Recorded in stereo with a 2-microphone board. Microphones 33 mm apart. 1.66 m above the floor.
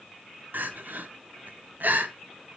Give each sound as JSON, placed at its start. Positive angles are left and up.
{"t": 0.5, "sound": "crying", "side_deg": -65, "distance_m": 0.8}